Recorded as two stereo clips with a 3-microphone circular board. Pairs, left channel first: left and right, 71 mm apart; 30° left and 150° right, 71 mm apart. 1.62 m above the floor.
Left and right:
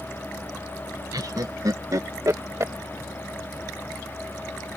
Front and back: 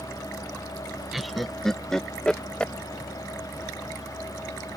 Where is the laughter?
60° right; by 2.7 s 45° right.